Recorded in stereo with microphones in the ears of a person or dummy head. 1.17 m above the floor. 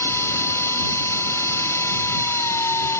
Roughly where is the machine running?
Centre.